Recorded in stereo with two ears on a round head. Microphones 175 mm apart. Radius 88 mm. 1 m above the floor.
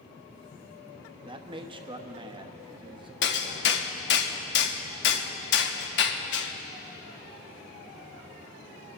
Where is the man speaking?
25° right (ahead or behind), 1.0 m.